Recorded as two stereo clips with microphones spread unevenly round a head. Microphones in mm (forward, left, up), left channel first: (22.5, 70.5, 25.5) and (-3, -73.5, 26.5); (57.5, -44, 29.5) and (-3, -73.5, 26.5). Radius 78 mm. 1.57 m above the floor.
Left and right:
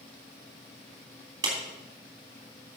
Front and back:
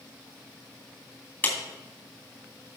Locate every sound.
1.4 s a clap: 35° right, 3 m